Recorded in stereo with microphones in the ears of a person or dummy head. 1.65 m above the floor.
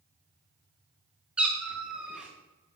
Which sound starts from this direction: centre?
A cat meowing, at 1.4 s.